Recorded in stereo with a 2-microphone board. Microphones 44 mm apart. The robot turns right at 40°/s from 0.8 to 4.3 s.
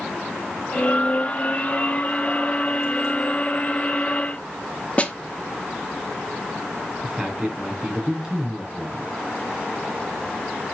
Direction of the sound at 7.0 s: 15° right (ahead or behind).